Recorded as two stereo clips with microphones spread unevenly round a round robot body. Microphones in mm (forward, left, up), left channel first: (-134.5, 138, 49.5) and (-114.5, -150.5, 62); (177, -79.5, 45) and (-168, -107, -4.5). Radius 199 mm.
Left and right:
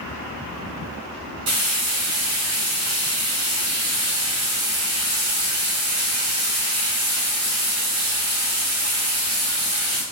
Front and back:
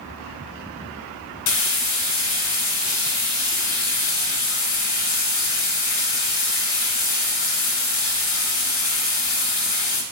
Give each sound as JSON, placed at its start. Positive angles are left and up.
{"t": 1.5, "sound": "frying", "azimuth_deg": -50, "distance_m": 0.8}